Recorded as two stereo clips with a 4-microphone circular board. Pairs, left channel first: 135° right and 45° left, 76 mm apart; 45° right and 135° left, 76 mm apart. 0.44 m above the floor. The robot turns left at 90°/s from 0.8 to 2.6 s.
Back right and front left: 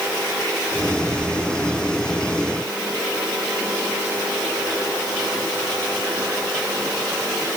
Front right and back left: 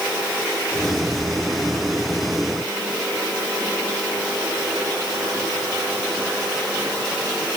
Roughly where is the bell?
I don't hear a bell.